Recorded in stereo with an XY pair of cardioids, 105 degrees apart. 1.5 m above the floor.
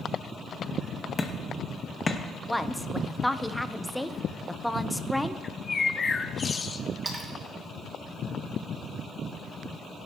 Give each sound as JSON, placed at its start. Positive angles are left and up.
{"t": 1.2, "sound": "hammering", "azimuth_deg": 30, "distance_m": 1.4}
{"t": 2.5, "sound": "a woman speaking", "azimuth_deg": 5, "distance_m": 0.8}
{"t": 5.4, "sound": "a bird", "azimuth_deg": 30, "distance_m": 0.8}
{"t": 7.0, "sound": "a splash", "azimuth_deg": -25, "distance_m": 3.0}